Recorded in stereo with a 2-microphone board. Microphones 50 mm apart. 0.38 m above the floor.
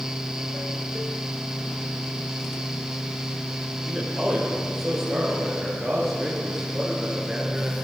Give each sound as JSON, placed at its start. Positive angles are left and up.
{"t": 3.9, "sound": "a man speaking", "side_deg": 0, "distance_m": 8.0}